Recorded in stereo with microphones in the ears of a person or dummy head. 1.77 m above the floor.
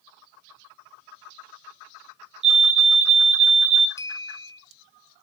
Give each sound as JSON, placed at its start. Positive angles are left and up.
{"t": 2.4, "sound": "a fire alarm", "side_deg": -30, "distance_m": 0.8}
{"t": 4.0, "sound": "a clink", "side_deg": 20, "distance_m": 0.8}